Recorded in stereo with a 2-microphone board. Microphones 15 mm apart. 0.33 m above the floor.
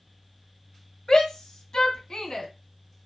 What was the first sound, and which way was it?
A shout, 50° left (ahead or behind).